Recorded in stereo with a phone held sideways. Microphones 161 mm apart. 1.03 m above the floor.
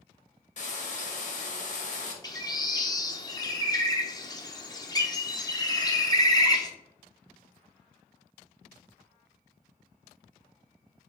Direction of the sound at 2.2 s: 25° left (ahead or behind).